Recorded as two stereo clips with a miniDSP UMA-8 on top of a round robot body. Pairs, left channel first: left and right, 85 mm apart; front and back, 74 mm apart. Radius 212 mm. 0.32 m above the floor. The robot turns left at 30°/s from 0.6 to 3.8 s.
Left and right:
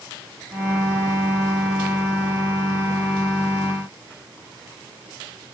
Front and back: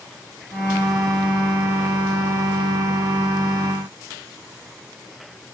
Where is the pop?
No pop in this recording.